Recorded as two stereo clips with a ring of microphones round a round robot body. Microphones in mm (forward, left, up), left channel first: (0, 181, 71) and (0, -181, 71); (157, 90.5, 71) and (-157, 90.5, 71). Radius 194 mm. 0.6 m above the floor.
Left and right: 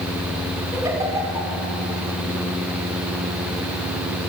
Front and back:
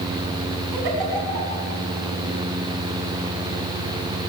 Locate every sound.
0.7 s a giggle: 170° right, 5.5 m